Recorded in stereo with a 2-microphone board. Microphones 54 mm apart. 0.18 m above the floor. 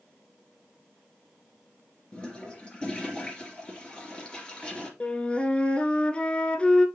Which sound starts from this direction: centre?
A toilet flushing, at 2.1 s.